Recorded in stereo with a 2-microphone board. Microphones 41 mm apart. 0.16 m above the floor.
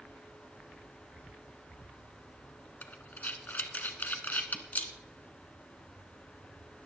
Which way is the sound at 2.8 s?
45° left (ahead or behind).